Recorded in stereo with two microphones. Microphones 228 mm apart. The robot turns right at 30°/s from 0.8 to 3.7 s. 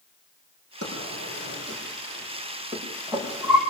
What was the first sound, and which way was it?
A drawer, 85° right.